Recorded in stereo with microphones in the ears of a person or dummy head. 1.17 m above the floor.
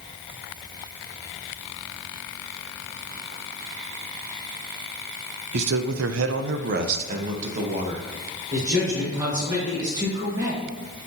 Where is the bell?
No bell in this recording.